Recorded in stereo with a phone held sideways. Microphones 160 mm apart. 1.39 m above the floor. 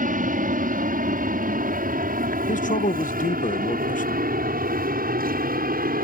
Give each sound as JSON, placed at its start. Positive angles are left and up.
{"t": 0.0, "sound": "an aircraft", "side_deg": -65}
{"t": 2.5, "sound": "a man speaking", "side_deg": 60}